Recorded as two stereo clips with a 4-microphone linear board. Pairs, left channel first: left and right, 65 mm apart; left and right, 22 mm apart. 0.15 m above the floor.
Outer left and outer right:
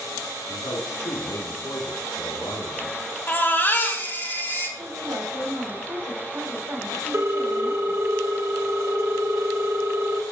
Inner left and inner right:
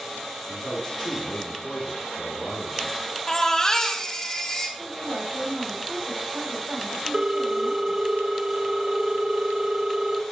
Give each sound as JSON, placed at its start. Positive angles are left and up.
{"t": 0.5, "sound": "a man speaking", "side_deg": 55, "distance_m": 2.5}
{"t": 3.3, "sound": "a baby crying", "side_deg": 30, "distance_m": 3.0}
{"t": 4.8, "sound": "a woman speaking", "side_deg": -65, "distance_m": 6.5}
{"t": 7.1, "sound": "a ringtone", "side_deg": -40, "distance_m": 0.9}